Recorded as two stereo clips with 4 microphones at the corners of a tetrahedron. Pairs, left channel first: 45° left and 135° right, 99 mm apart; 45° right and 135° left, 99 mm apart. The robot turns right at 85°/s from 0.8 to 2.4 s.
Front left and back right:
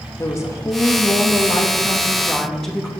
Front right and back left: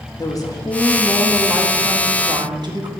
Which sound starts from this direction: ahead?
A woman speaking, at 0.2 s.